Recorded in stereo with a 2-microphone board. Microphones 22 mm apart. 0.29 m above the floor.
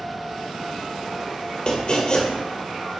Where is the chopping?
35° left (ahead or behind), 2 m.